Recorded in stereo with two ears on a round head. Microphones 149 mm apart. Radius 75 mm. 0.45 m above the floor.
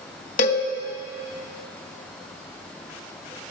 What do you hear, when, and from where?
0.4 s a cowbell: 45° left (ahead or behind), 1.5 m